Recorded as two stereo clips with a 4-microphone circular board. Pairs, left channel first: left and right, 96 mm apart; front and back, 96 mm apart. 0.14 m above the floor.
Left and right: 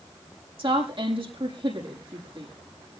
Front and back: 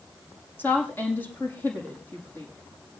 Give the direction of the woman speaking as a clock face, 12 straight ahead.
2 o'clock.